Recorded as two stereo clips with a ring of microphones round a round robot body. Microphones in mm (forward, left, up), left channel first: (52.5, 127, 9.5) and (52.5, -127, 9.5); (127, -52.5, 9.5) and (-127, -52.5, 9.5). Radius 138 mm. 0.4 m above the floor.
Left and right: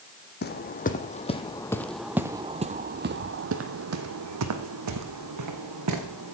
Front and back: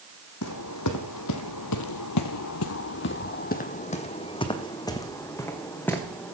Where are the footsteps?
40° left, 1.3 m; by 6.3 s 85° right, 2 m.